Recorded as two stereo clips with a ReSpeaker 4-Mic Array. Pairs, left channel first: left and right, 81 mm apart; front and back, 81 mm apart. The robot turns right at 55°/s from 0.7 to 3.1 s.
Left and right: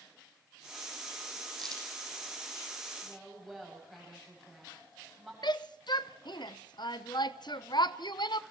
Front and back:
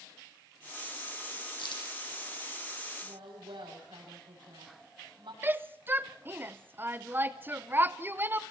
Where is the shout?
115° left, 0.7 m.